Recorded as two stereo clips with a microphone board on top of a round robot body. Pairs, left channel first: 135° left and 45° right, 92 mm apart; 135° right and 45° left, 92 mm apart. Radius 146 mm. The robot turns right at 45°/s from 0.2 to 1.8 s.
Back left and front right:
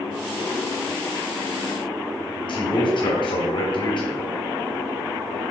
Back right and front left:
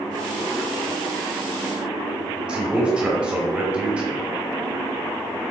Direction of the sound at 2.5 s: 120° left.